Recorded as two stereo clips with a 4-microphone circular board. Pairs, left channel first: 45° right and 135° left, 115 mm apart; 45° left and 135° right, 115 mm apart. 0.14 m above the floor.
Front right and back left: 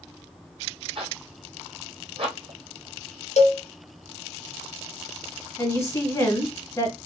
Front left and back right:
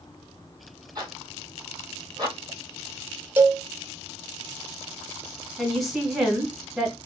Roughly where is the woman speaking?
Ahead right.